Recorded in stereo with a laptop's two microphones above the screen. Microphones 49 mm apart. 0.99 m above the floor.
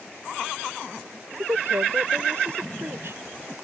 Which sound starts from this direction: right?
A woman speaking, at 1.3 s.